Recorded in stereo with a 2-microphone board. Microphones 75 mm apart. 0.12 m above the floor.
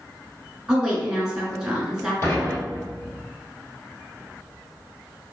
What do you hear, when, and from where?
0.7 s a woman speaking: 10° right (ahead or behind), 1.2 m
2.2 s dishes clattering: 40° left (ahead or behind), 1.9 m